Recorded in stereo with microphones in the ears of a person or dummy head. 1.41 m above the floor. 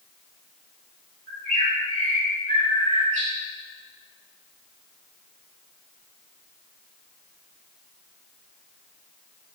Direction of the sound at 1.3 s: 40° right (ahead or behind).